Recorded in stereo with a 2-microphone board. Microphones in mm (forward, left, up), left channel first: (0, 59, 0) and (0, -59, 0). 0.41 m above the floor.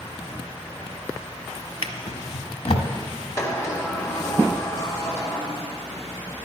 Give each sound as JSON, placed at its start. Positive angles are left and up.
{"t": 1.8, "sound": "a drawer", "side_deg": 60, "distance_m": 0.7}
{"t": 3.4, "sound": "a sliding door", "side_deg": 25, "distance_m": 1.4}